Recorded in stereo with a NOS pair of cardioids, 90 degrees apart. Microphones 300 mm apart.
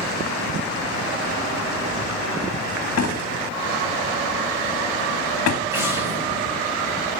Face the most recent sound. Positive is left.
turn(degrees=-10)